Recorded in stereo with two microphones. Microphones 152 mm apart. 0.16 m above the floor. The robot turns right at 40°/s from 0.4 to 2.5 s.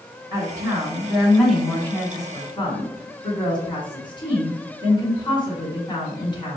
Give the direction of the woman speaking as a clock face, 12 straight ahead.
1 o'clock.